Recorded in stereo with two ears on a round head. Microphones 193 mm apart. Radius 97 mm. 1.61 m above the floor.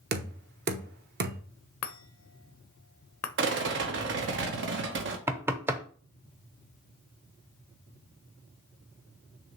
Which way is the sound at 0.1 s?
50° right (ahead or behind).